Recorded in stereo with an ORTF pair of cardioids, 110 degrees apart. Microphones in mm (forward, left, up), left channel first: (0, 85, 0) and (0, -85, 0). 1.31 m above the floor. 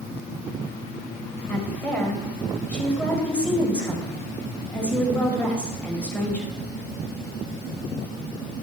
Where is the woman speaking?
10° left, 5.5 m.